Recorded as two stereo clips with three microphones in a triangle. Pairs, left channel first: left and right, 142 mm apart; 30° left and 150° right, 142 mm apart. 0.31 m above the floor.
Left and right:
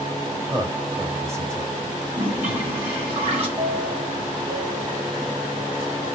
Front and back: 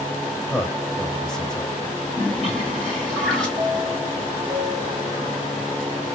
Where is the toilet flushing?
55° right, 1.8 m.